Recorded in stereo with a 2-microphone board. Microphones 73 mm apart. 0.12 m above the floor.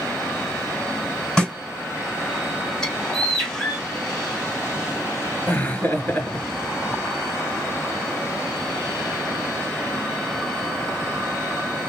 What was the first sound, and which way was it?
A snare drum, 10° left (ahead or behind).